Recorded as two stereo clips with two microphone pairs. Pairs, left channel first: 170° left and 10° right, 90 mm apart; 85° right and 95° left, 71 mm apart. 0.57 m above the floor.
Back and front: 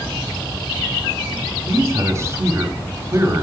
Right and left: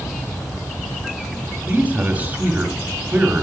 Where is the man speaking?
35° left, 0.9 m.